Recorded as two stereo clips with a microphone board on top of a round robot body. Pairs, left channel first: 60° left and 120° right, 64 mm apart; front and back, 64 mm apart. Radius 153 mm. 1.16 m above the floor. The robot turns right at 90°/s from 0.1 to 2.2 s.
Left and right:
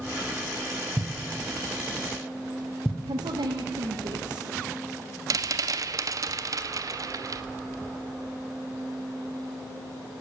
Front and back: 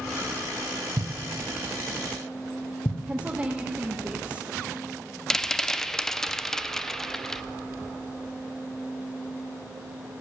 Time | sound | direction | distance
1.0 | a thud | 145° right | 1.7 m
3.1 | a woman speaking | 110° right | 1.1 m
5.3 | a rattle | 85° right | 0.5 m